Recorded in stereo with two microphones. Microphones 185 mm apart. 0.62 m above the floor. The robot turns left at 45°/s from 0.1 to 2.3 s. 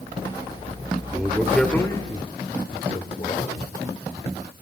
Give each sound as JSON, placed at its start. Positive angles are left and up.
{"t": 1.1, "sound": "a man speaking", "side_deg": -15, "distance_m": 2.5}